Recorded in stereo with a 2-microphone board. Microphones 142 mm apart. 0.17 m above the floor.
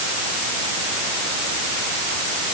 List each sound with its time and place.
Only background noise.